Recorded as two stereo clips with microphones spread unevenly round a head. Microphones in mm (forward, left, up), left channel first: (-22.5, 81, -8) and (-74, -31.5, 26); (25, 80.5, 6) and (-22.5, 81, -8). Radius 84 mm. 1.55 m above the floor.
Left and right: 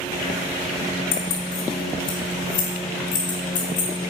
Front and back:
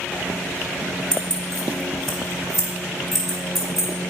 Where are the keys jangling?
70° left, 3 m; by 3.9 s 85° left, 5 m.